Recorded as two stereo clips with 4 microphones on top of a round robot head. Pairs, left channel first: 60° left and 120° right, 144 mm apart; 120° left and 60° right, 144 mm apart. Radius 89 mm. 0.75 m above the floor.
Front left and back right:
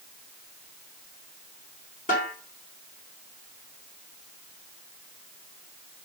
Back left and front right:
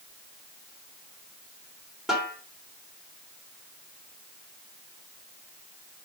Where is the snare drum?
25° left, 3 m.